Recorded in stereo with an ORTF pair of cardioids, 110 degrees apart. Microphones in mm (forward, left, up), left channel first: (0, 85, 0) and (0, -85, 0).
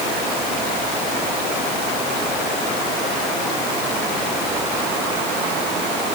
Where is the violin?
No violin in this recording.